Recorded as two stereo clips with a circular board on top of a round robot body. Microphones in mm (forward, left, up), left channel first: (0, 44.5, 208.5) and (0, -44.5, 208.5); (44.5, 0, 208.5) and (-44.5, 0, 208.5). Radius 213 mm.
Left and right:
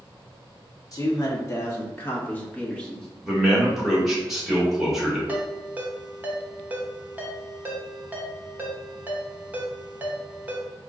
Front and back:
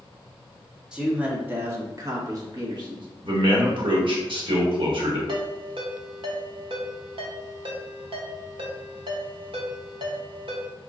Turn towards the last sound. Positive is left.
turn(degrees=-160)